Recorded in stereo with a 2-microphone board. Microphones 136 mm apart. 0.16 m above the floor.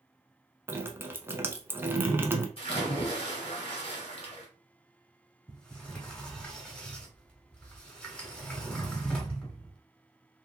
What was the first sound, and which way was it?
Dripping, 15° right (ahead or behind).